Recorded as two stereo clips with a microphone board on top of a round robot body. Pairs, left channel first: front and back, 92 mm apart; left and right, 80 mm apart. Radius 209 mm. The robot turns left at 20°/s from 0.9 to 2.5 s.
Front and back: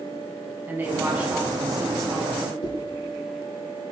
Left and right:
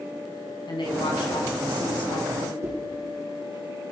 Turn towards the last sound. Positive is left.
turn(degrees=-30)